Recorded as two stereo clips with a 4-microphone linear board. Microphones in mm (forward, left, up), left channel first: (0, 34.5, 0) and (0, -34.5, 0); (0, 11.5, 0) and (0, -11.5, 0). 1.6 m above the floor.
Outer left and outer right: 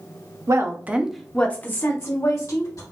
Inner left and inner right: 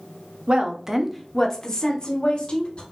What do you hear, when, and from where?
0.5 s a woman speaking: 50° right (ahead or behind), 0.9 m; by 2.8 s 55° left (ahead or behind), 1.9 m